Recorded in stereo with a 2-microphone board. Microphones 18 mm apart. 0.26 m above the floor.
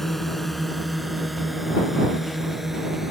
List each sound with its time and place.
0.0 s a drone: 15° left (ahead or behind); by 3.1 s 15° right (ahead or behind)